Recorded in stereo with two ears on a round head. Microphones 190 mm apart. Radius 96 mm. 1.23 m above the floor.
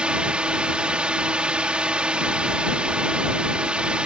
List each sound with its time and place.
0.0 s a drone: 5° right (ahead or behind)